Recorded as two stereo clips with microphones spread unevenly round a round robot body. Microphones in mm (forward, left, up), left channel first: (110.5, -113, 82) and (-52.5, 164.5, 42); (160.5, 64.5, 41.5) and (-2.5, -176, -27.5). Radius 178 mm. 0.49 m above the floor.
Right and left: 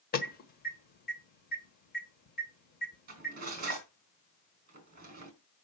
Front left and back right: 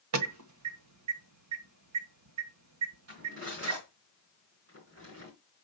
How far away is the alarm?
About 1.4 m.